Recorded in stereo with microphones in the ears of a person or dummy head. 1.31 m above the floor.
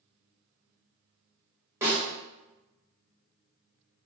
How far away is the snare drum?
About 2.0 m.